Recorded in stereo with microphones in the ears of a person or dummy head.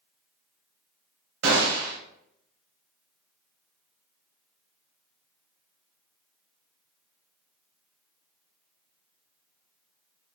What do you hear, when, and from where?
1.4 s a gunshot: 70° right (ahead or behind), 1.0 m